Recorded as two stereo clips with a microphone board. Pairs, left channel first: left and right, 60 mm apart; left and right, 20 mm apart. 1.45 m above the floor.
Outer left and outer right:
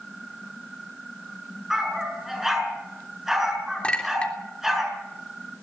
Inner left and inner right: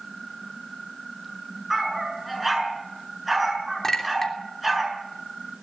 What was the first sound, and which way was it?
A dog barking, 5° right (ahead or behind).